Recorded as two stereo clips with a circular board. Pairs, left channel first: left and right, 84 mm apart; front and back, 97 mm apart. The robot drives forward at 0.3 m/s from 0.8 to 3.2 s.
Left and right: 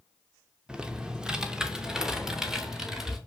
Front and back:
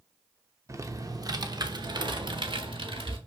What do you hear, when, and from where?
0.7 s typing on a keyboard: 160° right, 0.7 m; by 3.2 s 175° right, 1.3 m